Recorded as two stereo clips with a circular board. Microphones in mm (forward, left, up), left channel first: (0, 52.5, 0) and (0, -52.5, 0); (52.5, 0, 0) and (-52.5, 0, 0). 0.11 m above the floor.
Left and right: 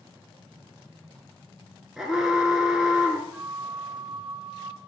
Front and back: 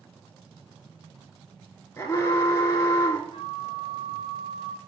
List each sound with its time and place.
2.0 s an alarm: 10° right, 0.9 m
3.3 s a flute: 10° right, 0.5 m